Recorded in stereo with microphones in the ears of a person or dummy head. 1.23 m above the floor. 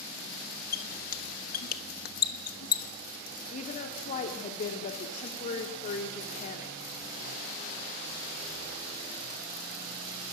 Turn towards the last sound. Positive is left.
turn(degrees=40)  # may be behind; listen again after turning